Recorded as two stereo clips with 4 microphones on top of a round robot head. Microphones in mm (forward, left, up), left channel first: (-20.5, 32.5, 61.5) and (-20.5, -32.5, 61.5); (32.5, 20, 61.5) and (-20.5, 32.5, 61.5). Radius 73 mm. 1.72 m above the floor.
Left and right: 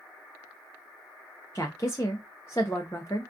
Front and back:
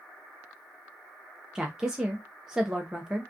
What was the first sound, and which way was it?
A woman speaking, 95° left.